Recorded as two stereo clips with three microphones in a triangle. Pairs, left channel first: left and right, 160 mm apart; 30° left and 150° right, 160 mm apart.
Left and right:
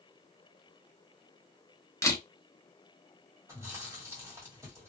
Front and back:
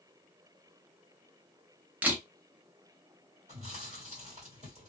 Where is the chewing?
155° right, 1.8 m.